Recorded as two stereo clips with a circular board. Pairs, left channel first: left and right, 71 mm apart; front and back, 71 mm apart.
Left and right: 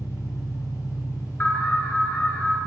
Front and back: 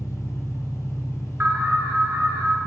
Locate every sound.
0.0 s an engine running: 50° left, 2 m
1.4 s an alarm: 140° left, 1.6 m